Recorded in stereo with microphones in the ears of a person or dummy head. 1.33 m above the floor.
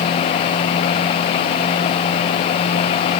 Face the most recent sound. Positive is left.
No sound to turn to.